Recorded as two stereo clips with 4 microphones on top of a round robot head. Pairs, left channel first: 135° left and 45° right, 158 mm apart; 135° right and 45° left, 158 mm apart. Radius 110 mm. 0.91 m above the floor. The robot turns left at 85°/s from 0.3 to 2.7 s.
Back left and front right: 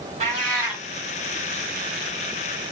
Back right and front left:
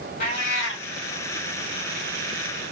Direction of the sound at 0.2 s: 95° right.